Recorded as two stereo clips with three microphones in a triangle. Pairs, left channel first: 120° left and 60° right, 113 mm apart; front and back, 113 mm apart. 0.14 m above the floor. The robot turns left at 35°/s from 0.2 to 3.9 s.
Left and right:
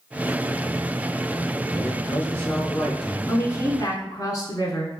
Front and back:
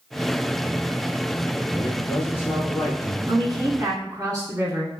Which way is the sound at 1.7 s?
75° left.